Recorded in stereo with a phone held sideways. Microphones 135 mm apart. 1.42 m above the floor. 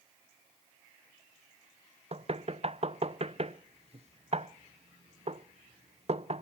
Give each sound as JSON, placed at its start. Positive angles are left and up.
{"t": 2.1, "sound": "knocking", "side_deg": -50, "distance_m": 0.5}